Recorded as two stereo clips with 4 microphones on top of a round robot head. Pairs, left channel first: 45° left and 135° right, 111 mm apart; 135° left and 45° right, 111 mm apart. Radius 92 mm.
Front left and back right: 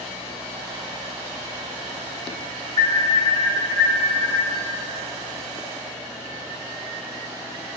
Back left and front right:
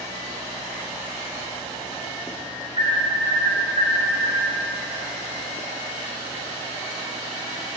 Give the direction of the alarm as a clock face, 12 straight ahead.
12 o'clock.